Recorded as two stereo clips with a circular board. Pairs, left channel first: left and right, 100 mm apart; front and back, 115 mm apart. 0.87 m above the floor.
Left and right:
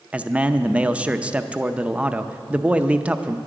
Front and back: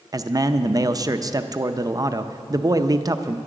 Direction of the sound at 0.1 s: 155° right.